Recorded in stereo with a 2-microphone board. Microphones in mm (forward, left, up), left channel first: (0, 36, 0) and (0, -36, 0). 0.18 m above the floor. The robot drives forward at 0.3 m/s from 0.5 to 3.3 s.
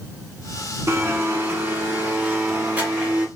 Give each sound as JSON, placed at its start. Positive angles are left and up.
{"t": 0.9, "sound": "a blender", "side_deg": -35, "distance_m": 0.7}